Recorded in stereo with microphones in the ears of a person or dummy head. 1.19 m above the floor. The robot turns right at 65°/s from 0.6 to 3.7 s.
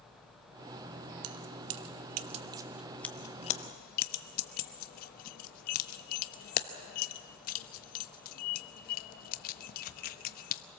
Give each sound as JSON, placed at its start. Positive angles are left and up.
{"t": 1.2, "sound": "keys jangling", "side_deg": -70, "distance_m": 0.8}